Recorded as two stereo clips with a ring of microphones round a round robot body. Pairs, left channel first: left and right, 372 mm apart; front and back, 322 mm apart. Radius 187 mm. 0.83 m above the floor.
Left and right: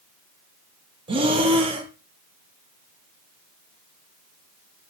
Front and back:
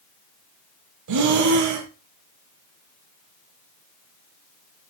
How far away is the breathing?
About 0.7 m.